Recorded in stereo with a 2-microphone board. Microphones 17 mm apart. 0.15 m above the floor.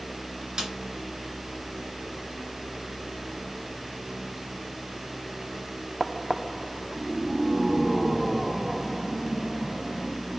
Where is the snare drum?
50° right (ahead or behind), 2.5 m.